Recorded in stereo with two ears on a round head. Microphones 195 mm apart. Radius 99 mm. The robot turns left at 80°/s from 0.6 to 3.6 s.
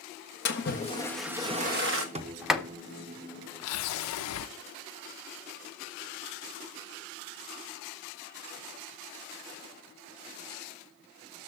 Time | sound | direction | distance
0.5 | a splash | 50° left | 1.4 m
2.1 | a sliding door | 30° right (ahead or behind) | 0.8 m